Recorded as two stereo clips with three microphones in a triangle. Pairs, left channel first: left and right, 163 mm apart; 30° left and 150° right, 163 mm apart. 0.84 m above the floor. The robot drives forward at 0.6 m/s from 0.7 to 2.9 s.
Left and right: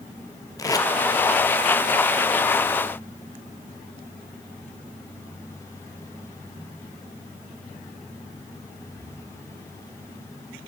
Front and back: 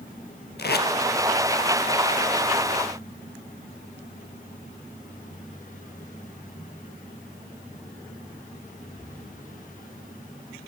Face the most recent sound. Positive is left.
turn(degrees=160)